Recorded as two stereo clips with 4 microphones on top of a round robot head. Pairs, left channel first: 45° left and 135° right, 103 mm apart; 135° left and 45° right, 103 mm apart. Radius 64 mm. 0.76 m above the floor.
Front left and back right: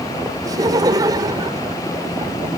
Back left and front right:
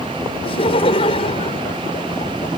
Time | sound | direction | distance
0.4 | laughter | 170° left | ?